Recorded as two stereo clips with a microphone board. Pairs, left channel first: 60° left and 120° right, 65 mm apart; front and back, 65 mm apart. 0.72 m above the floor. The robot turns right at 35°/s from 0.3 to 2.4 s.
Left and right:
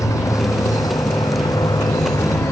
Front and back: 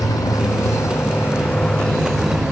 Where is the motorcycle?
25° left; by 2.5 s 100° left.